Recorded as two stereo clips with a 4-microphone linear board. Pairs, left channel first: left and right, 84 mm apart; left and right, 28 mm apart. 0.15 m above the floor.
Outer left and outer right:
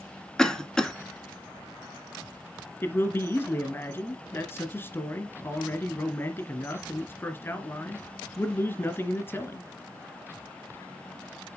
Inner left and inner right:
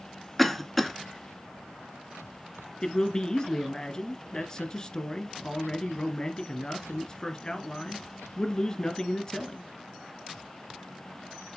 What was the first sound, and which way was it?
A cough, 10° left (ahead or behind).